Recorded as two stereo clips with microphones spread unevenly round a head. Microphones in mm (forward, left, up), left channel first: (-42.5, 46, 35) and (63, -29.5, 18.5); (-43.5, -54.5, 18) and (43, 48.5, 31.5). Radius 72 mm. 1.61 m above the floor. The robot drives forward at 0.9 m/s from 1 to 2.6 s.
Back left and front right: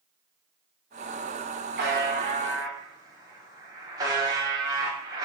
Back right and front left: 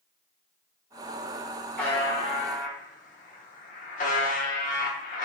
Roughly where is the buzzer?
Ahead right.